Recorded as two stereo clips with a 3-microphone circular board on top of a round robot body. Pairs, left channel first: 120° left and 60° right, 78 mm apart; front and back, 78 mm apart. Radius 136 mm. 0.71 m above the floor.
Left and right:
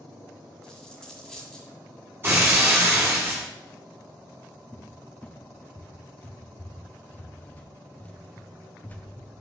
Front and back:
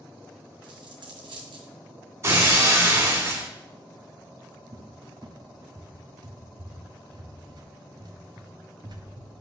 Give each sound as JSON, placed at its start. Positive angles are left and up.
{"t": 0.6, "sound": "a dropped coin", "azimuth_deg": -155, "distance_m": 1.7}
{"t": 2.2, "sound": "breaking glass", "azimuth_deg": -125, "distance_m": 1.7}
{"t": 4.7, "sound": "a cupboard door", "azimuth_deg": -175, "distance_m": 1.2}